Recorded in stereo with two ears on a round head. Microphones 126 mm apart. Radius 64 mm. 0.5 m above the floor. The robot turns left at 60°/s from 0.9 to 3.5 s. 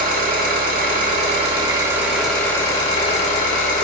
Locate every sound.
0.0 s an engine running: 100° right, 1.1 m; by 3.9 s 105° left, 1.1 m